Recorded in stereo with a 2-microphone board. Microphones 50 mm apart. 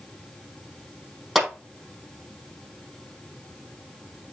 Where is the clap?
Centre (ahead or behind), 5 m.